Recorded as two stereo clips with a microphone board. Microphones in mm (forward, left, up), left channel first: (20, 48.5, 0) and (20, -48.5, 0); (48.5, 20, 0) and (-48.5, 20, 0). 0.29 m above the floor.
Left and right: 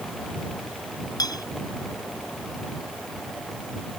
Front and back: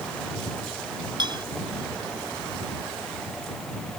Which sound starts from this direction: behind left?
A clink, at 1.2 s.